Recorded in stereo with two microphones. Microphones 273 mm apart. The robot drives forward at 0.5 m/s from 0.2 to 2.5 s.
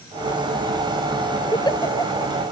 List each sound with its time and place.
1.5 s a giggle: 15° left (ahead or behind)